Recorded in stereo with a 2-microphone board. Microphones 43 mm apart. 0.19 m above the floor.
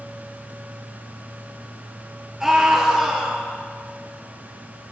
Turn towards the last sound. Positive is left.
turn(degrees=-15)  # may be behind; listen again after turning